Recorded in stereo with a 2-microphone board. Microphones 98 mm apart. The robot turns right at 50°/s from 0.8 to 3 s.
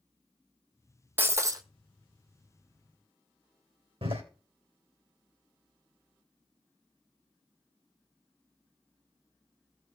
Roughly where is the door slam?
Right.